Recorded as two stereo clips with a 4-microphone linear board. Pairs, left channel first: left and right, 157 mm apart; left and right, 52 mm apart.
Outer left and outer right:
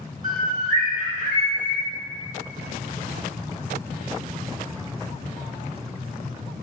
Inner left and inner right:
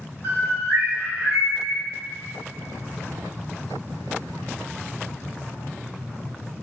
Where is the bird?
60° right (ahead or behind), 1.1 m.